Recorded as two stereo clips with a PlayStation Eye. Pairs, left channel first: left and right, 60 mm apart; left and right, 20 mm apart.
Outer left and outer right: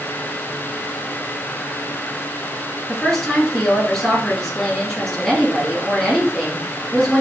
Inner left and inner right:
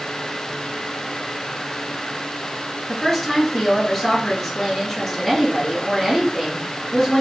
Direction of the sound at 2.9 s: Centre (ahead or behind).